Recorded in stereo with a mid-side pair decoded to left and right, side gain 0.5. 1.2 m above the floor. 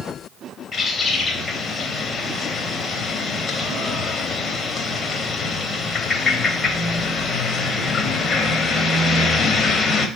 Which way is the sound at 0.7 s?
40° left.